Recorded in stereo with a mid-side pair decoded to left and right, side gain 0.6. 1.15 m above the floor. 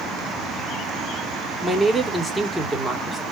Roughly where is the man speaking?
Ahead.